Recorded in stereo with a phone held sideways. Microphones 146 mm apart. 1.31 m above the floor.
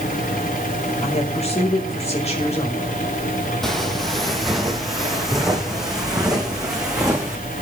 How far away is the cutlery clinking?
No cutlery clinking in this recording.